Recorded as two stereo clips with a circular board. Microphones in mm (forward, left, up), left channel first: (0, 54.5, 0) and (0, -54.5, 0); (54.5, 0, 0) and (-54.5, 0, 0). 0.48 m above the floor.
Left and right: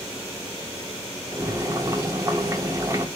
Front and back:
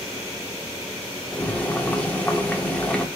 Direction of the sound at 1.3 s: 65° right.